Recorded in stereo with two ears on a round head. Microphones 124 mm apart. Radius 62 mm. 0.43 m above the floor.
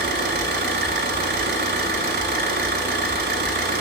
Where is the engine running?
75° right (ahead or behind), 1.2 m.